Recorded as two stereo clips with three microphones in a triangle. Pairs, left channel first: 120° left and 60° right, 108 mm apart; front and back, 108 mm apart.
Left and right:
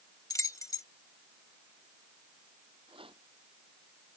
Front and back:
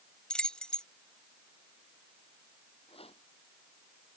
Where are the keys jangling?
80° left.